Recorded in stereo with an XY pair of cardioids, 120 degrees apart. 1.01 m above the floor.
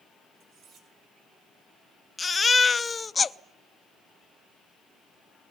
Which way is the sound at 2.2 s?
25° left.